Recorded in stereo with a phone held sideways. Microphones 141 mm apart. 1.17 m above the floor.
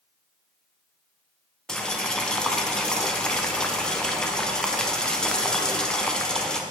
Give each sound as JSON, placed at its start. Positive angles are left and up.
{"t": 1.7, "sound": "boiling", "side_deg": 5, "distance_m": 0.5}